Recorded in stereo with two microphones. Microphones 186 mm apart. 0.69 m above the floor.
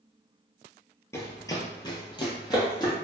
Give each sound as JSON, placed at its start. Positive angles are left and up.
{"t": 1.1, "sound": "running footsteps", "side_deg": 15, "distance_m": 0.7}